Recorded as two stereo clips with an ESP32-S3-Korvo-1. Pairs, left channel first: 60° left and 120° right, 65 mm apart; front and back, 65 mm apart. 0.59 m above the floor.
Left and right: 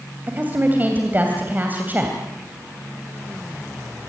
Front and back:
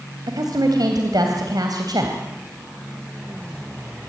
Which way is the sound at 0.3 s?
Straight behind.